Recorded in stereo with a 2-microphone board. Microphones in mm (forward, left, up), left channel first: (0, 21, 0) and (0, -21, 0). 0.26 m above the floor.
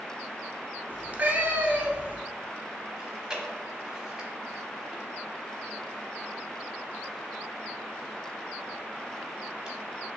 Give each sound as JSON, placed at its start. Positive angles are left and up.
{"t": 0.9, "sound": "a cat meowing", "side_deg": -40, "distance_m": 0.6}
{"t": 3.0, "sound": "chewing", "side_deg": -15, "distance_m": 0.8}